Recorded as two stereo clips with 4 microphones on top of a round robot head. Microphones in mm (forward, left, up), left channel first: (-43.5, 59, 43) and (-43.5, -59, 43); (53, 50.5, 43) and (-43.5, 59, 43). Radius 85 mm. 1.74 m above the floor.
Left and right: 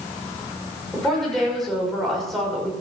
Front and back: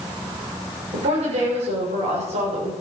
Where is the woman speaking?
175° left, 6.5 m.